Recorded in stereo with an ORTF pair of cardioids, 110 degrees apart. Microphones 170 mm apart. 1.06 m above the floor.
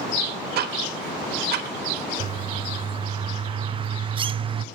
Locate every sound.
0.6 s ticking: 60° right, 1.5 m
2.2 s a bird: 30° right, 0.5 m